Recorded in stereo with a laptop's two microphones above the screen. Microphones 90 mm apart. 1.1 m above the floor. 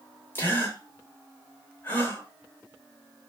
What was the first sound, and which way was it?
A gasp, 25° left (ahead or behind).